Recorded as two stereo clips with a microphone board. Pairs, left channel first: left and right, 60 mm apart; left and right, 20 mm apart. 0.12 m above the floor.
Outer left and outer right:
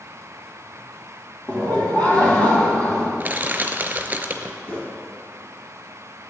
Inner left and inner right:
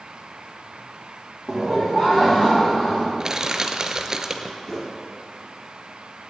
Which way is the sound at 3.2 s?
30° right (ahead or behind).